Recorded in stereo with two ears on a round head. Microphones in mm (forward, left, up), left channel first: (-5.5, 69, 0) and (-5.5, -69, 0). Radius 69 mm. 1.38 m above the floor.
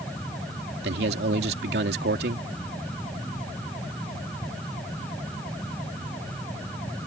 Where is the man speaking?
70° right (ahead or behind).